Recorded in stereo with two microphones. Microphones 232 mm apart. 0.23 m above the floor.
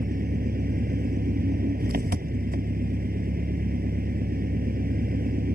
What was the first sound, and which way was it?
An engine running, 40° right (ahead or behind).